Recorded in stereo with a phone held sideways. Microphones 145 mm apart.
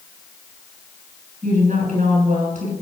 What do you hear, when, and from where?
1.4 s a woman speaking: 60° right (ahead or behind), 7 m